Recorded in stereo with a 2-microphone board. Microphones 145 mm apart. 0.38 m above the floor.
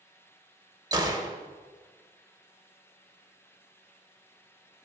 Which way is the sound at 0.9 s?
25° right (ahead or behind).